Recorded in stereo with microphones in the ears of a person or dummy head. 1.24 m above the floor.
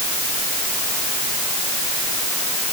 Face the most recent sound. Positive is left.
No sound to turn to.